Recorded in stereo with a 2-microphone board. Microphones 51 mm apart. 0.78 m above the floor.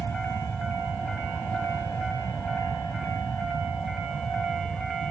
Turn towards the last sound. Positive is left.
turn(degrees=55)  # may be behind; listen again after turning